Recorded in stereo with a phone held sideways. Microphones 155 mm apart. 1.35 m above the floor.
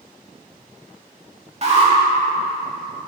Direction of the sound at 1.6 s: 45° right (ahead or behind).